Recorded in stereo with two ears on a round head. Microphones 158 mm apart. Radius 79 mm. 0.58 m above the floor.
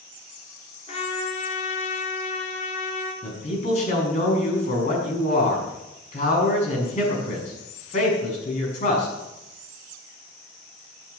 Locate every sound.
0.9 s a trumpet: 35° left (ahead or behind), 4 m
3.2 s a man speaking: 40° left (ahead or behind), 6.5 m